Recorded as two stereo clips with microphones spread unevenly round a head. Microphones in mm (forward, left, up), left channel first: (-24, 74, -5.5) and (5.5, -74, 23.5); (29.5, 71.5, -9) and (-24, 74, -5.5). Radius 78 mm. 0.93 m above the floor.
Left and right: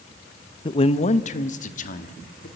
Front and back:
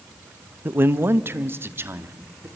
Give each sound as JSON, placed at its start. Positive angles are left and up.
{"t": 0.7, "sound": "a man speaking", "azimuth_deg": 135, "distance_m": 0.7}